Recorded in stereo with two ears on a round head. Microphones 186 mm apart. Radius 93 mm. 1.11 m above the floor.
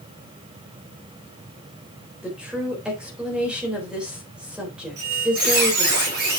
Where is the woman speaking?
5° right (ahead or behind), 4 m.